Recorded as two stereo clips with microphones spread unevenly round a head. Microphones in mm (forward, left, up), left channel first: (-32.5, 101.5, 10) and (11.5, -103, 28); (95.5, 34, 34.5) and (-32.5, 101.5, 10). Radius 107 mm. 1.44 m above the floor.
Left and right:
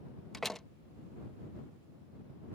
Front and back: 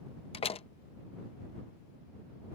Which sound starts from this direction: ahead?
A door slam, at 0.3 s.